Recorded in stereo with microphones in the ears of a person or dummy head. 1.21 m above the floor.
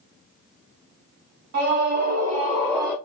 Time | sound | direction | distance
1.5 | a scream | 60° right (ahead or behind) | 1.3 m